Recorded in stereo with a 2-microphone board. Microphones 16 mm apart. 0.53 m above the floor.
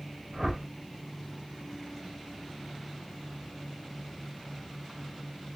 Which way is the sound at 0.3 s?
5° right (ahead or behind).